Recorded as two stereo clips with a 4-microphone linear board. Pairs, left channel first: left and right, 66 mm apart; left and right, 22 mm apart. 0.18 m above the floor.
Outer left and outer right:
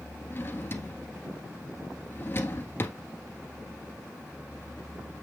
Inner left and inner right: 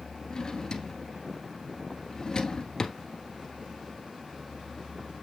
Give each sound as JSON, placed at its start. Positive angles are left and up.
{"t": 0.3, "sound": "a drawer", "side_deg": 35, "distance_m": 1.5}